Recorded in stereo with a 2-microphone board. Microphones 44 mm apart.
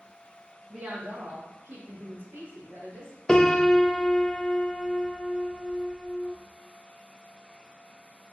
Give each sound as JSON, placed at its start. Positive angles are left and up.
{"t": 0.7, "sound": "a woman speaking", "side_deg": -50, "distance_m": 1.0}
{"t": 3.3, "sound": "a piano", "side_deg": 15, "distance_m": 0.5}